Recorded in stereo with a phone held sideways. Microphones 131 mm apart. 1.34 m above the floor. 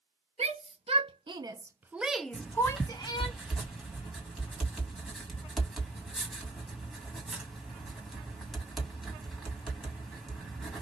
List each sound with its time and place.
0.4 s a shout: 55° right (ahead or behind), 1.1 m; by 3.3 s 40° left (ahead or behind), 1.0 m
2.3 s writing: centre (ahead or behind), 1.8 m